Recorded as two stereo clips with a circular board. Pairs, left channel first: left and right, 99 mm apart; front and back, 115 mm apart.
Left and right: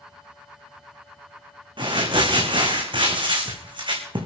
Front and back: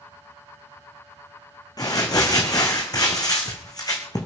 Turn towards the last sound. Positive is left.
turn(degrees=-55)